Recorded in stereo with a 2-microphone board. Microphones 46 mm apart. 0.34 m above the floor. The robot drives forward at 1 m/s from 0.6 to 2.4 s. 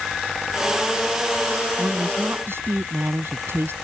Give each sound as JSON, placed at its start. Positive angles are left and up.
{"t": 1.8, "sound": "a woman speaking", "side_deg": -65}